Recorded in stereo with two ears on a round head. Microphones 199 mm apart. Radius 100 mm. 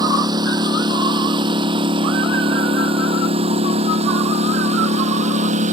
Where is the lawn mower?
20° right (ahead or behind); by 5.7 s 35° right (ahead or behind).